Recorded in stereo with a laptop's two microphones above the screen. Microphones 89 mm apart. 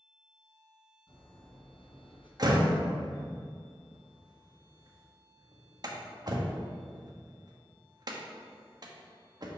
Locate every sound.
1.1 s breathing: 70° left (ahead or behind), 1.9 m
2.4 s a door slam: 50° right (ahead or behind), 1.1 m